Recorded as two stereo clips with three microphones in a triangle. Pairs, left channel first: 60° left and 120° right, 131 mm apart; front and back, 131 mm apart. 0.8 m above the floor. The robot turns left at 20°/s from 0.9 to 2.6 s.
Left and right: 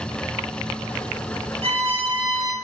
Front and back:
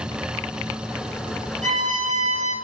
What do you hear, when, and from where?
1.6 s a violin: 160° right, 1.5 m; by 2.5 s straight behind, 1.5 m